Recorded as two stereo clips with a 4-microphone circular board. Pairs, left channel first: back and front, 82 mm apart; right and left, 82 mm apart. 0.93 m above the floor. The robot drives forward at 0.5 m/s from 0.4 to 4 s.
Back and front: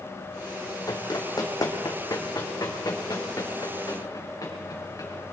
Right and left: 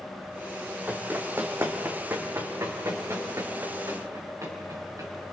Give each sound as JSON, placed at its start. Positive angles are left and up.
{"t": 0.9, "sound": "running footsteps", "azimuth_deg": 155, "distance_m": 1.6}